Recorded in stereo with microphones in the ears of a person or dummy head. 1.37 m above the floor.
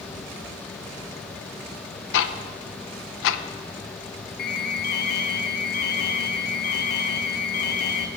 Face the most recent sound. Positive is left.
turn(degrees=45)  # may be behind; listen again after turning